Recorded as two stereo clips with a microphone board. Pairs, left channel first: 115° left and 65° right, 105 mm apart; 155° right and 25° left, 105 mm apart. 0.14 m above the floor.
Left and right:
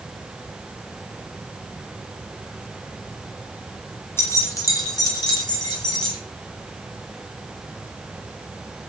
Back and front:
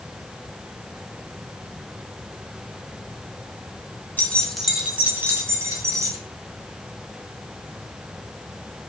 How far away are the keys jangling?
About 1.0 m.